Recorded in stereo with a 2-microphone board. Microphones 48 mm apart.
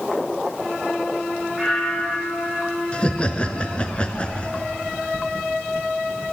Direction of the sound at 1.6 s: Centre (ahead or behind).